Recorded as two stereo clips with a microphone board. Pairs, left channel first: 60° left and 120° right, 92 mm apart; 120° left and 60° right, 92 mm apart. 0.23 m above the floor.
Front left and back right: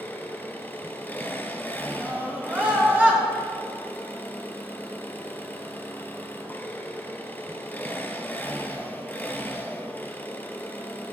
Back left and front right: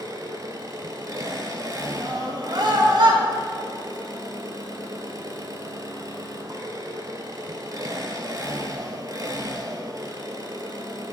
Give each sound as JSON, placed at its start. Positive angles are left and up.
{"t": 0.0, "sound": "an engine running", "azimuth_deg": -10, "distance_m": 1.2}
{"t": 2.0, "sound": "a scream", "azimuth_deg": -50, "distance_m": 3.5}